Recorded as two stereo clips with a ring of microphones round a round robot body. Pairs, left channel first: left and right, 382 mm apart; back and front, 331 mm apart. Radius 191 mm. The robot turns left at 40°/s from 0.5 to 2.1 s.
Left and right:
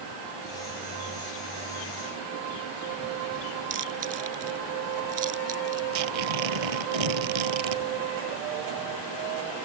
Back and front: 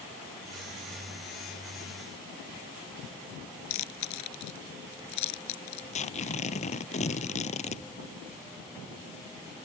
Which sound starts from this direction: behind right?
Chewing, at 3.7 s.